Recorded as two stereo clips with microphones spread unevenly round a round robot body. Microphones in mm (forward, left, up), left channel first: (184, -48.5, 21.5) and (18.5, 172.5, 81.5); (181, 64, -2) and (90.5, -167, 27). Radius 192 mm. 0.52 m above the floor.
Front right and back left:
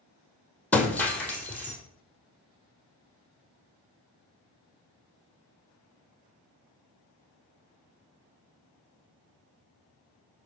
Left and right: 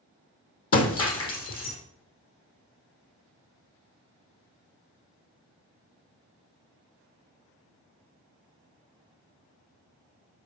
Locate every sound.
0.7 s breaking glass: 35° left, 1.9 m